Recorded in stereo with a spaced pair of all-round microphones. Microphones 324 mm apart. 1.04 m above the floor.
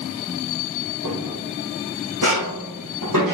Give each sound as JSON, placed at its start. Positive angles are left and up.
{"t": 1.0, "sound": "footsteps", "side_deg": -70, "distance_m": 4.0}